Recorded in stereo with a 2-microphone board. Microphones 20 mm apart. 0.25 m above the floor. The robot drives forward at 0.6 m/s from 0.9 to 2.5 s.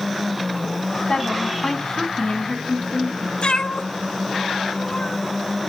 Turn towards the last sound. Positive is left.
turn(degrees=65)  # may be behind; listen again after turning